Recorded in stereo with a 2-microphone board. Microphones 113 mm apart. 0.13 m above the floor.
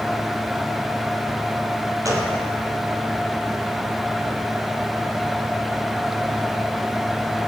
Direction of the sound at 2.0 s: 30° right (ahead or behind).